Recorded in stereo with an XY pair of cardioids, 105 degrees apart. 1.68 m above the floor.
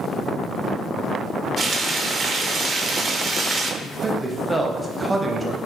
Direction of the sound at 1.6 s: 45° right.